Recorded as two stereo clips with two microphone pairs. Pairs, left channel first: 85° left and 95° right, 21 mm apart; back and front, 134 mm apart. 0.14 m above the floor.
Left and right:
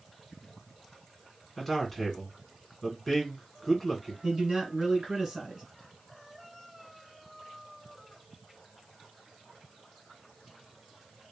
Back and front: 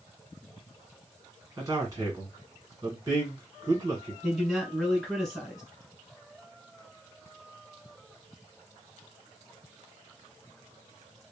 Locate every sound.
1.6 s a man speaking: 35° left, 1.9 m
4.2 s a man speaking: 95° right, 1.7 m